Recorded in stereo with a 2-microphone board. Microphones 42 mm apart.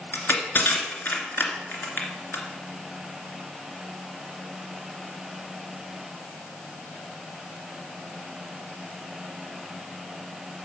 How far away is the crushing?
About 2 m.